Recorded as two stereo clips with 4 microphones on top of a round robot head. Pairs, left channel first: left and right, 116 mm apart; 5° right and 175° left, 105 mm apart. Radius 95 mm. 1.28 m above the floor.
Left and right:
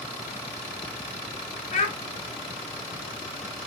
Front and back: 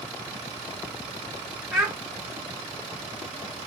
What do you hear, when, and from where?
1.7 s a child speaking: 90° left, 1.2 m